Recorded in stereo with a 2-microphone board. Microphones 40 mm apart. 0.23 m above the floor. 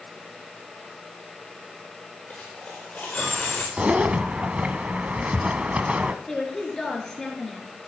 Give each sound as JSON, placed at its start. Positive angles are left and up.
{"t": 2.3, "sound": "a dropped coin", "side_deg": 35, "distance_m": 5.5}
{"t": 3.8, "sound": "a zipper", "side_deg": -35, "distance_m": 0.9}
{"t": 6.3, "sound": "a woman speaking", "side_deg": 10, "distance_m": 3.0}